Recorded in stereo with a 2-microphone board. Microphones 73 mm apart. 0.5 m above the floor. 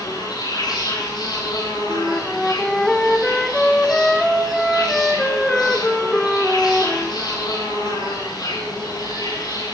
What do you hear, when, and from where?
0.0 s an insect: 80° left, 9.5 m
1.9 s a flute: 5° left (ahead or behind), 1.5 m